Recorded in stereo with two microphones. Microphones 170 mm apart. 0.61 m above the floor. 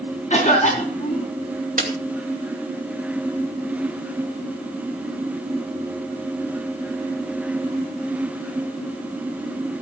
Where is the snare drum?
55° right (ahead or behind), 2.5 m.